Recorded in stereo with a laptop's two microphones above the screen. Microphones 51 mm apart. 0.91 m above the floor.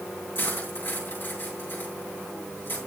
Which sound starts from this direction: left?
Cutlery clinking, at 0.3 s.